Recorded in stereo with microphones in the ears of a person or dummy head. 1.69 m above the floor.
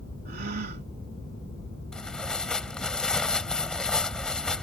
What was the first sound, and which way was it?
A gasp, 50° right (ahead or behind).